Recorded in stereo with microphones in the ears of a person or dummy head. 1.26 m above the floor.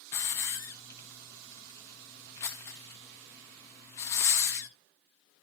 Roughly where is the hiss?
Centre.